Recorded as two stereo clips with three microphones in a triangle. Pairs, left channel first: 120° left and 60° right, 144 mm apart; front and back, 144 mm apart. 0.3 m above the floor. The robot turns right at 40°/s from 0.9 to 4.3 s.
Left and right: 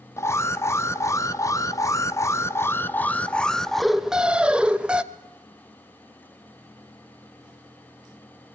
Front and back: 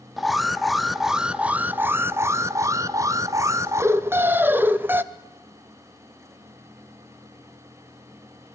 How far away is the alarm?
About 0.6 m.